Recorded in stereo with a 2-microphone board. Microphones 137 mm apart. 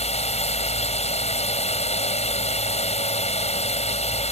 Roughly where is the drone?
Left.